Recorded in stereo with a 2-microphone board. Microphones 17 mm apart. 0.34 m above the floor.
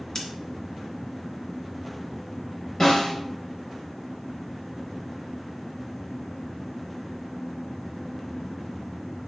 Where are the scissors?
30° left (ahead or behind), 2.0 m.